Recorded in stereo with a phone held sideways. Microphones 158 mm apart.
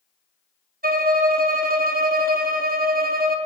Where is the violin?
65° right (ahead or behind), 0.5 m.